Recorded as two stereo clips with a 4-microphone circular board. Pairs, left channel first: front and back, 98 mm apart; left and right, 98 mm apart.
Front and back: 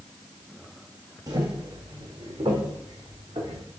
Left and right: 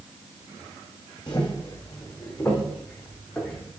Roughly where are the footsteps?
Behind left.